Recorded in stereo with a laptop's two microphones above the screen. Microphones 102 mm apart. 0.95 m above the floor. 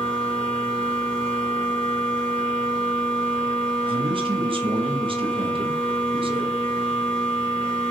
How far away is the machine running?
About 1.1 m.